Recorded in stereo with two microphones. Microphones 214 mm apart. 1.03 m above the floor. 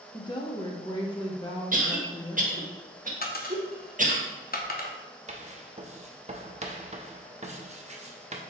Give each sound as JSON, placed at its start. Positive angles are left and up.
{"t": 0.1, "sound": "a woman speaking", "side_deg": 20, "distance_m": 0.6}
{"t": 1.7, "sound": "a cough", "side_deg": -40, "distance_m": 1.0}
{"t": 3.2, "sound": "a dropped coin", "side_deg": 45, "distance_m": 0.6}
{"t": 5.3, "sound": "writing", "side_deg": -30, "distance_m": 0.5}